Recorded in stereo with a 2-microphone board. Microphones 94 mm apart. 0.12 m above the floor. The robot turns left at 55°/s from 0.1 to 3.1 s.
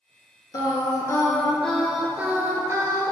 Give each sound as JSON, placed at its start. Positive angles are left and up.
{"t": 0.5, "sound": "singing", "azimuth_deg": 75, "distance_m": 0.6}